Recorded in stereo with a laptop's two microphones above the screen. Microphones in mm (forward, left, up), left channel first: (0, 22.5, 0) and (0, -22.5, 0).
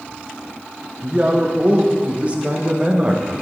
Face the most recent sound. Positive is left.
turn(degrees=-30)  # may be behind; listen again after turning